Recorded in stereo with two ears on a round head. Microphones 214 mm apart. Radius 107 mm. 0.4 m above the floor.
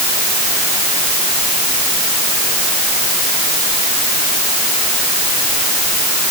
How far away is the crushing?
No crushing in this recording.